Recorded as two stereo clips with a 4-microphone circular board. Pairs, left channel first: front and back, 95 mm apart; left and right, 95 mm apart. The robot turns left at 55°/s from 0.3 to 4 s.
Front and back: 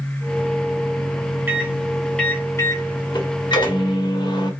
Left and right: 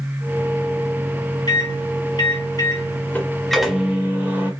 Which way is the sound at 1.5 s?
115° left.